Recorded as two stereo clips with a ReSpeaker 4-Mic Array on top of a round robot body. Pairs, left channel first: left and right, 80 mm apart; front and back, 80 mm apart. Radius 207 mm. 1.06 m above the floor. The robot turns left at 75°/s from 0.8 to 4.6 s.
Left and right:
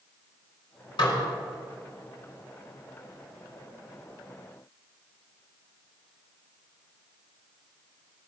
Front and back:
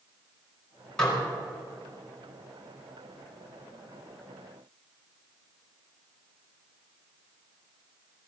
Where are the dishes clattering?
80° left, 4.5 m; by 1.2 s 65° left, 4.5 m.